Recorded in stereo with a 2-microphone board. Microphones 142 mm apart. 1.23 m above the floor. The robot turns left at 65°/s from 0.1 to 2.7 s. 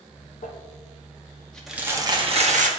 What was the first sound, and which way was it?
Crumpling, 80° left.